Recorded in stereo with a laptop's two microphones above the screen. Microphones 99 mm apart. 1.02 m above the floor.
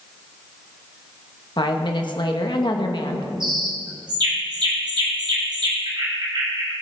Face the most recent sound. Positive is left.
turn(degrees=-55)  # may be behind; listen again after turning